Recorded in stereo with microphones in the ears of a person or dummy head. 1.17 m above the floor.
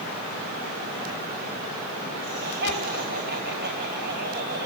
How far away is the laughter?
About 7 m.